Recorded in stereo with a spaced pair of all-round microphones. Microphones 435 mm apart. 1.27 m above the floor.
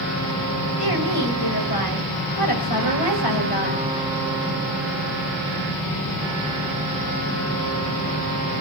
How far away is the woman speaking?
About 6.5 m.